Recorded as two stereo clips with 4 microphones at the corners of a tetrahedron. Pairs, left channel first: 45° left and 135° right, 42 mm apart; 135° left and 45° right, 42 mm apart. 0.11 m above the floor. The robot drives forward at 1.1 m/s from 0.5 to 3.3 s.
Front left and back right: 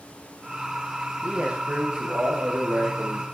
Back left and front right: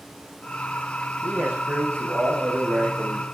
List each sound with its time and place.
1.2 s a man speaking: 70° right, 7 m; by 3.2 s 85° right, 6.5 m